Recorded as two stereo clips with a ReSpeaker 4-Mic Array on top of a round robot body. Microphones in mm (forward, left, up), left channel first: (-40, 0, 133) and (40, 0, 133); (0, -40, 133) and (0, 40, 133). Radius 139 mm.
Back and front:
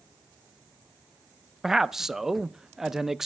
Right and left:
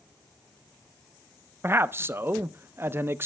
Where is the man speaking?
80° left, 0.5 m.